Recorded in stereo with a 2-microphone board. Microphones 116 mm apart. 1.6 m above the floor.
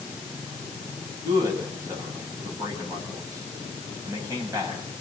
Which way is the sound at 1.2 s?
30° right (ahead or behind).